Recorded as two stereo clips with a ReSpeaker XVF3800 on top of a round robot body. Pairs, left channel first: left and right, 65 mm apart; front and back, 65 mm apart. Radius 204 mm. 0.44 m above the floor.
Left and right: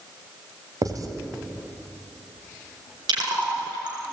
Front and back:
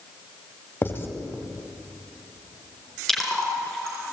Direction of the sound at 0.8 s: 60° right.